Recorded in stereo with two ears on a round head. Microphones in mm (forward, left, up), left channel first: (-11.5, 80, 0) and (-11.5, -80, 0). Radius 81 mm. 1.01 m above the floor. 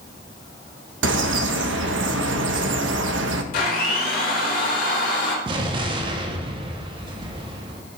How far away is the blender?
About 1.9 m.